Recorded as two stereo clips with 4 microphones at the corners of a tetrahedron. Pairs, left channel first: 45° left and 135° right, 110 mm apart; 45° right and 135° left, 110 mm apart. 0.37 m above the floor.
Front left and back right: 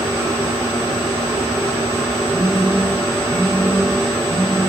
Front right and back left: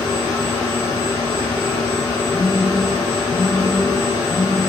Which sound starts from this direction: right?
A phone buzzing, at 2.3 s.